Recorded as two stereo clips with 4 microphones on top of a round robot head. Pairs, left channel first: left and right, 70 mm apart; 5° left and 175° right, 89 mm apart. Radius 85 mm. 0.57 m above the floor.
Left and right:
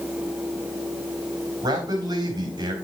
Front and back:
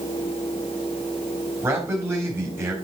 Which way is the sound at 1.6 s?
110° right.